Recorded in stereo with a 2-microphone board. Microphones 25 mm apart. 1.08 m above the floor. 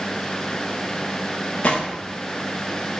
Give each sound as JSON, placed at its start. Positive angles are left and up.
{"t": 1.6, "sound": "a gunshot", "side_deg": 65, "distance_m": 1.1}